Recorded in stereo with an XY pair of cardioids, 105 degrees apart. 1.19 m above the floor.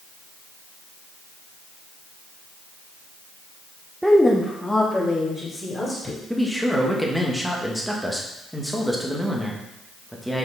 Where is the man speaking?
Straight ahead, 1.6 m.